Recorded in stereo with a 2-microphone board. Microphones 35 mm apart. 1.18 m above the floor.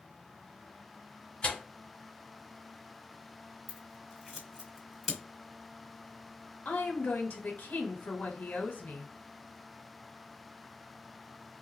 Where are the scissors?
Centre (ahead or behind), 1.5 m.